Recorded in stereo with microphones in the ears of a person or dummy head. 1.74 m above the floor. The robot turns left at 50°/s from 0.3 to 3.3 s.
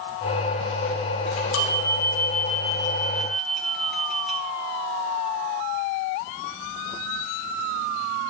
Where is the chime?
105° left, 1.8 m; by 4.4 s straight ahead, 1.8 m.